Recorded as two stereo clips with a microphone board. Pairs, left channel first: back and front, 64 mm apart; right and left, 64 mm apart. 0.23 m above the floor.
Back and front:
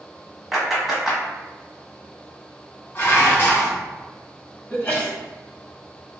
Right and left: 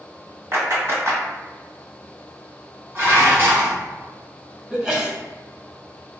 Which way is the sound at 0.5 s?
85° left.